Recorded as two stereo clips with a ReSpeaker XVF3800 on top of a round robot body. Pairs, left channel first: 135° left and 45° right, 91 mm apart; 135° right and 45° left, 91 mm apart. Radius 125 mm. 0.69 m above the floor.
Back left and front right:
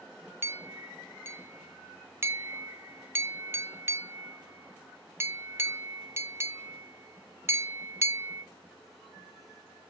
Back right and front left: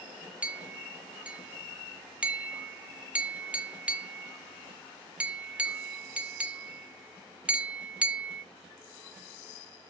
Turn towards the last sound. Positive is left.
turn(degrees=-20)